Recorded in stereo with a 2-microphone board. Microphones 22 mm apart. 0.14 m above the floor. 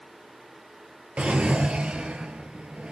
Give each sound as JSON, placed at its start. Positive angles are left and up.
{"t": 1.2, "sound": "a drawer", "side_deg": -60, "distance_m": 1.2}